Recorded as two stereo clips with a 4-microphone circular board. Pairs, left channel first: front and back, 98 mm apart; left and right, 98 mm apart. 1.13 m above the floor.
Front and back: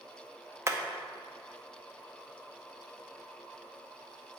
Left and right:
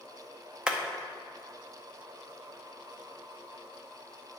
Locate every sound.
0.7 s hammering: 160° right, 0.5 m